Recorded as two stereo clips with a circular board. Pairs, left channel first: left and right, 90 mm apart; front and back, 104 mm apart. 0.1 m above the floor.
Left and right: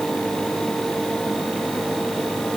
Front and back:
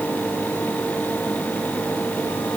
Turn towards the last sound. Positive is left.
No sound to turn to.